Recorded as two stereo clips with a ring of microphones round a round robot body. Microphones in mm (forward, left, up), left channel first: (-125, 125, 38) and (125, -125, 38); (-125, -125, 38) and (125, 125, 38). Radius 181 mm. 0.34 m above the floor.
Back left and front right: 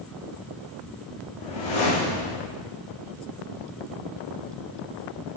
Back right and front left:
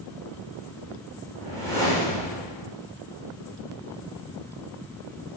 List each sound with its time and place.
1.4 s a whoosh: 140° left, 4 m